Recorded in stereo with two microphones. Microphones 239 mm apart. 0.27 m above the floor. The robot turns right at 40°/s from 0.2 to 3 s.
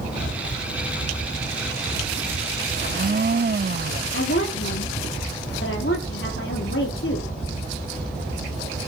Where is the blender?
50° right (ahead or behind), 0.5 m; by 4.0 s 45° right (ahead or behind), 0.5 m.